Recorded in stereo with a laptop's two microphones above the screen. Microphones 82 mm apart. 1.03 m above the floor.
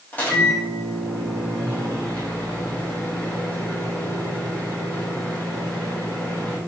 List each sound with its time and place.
0.1 s a microwave: 20° left (ahead or behind), 0.8 m